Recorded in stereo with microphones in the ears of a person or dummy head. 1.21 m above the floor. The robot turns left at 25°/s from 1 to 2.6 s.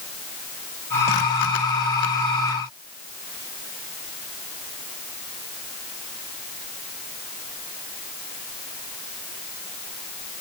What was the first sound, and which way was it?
Only background noise.